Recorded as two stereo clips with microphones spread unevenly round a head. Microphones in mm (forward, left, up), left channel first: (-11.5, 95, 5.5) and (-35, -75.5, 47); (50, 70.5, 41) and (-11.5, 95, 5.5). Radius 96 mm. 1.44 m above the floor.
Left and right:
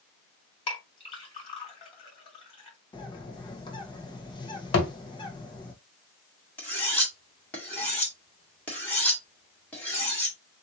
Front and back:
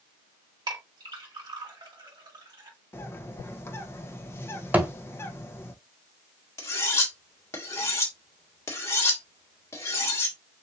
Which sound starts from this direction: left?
A thud, at 4.7 s.